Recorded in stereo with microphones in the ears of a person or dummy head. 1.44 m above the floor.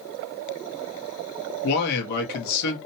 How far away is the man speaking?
About 1.0 m.